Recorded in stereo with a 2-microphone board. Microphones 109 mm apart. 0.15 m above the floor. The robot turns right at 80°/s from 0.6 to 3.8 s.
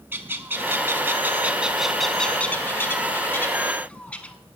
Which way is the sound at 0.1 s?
20° right (ahead or behind).